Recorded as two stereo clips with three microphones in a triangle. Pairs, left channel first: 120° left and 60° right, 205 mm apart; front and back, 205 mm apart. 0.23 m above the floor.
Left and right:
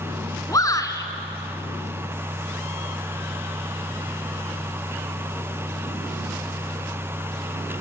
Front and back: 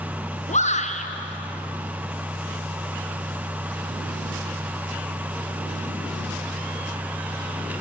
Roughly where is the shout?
Ahead left.